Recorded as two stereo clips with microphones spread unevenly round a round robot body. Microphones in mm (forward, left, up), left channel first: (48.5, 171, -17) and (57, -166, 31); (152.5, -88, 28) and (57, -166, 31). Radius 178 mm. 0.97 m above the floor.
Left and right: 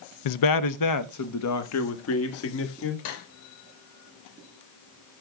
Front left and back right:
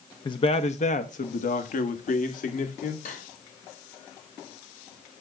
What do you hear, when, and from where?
0.2 s a man speaking: 100° left, 0.6 m; by 3.0 s 40° left, 2 m
3.0 s cutlery clinking: 70° left, 2 m